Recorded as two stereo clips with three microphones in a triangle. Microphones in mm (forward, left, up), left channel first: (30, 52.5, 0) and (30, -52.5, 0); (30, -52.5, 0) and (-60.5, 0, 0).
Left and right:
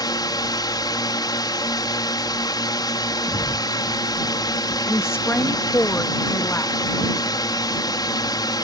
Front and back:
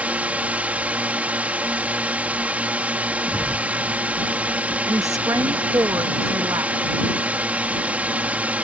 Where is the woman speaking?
140° left.